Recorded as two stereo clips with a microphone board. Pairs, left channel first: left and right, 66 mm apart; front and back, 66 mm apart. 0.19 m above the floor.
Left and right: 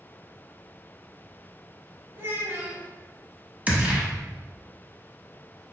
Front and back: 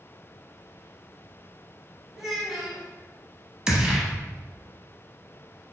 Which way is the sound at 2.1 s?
90° right.